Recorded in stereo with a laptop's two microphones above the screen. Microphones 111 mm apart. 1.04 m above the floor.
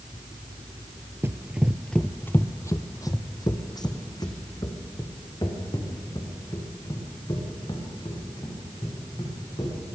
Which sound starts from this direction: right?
Running footsteps, at 1.2 s.